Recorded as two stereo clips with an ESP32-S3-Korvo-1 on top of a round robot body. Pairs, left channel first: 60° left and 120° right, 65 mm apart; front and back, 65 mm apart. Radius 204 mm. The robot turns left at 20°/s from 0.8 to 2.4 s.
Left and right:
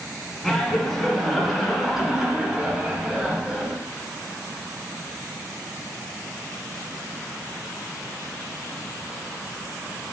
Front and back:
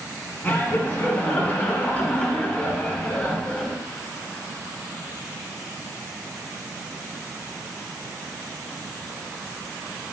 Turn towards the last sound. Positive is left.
turn(degrees=-50)